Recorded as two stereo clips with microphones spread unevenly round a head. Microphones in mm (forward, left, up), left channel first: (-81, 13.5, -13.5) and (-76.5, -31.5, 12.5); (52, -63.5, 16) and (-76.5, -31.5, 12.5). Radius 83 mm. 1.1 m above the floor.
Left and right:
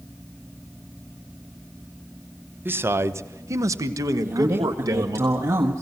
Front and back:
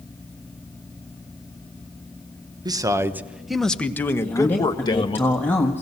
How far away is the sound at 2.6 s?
About 1.2 m.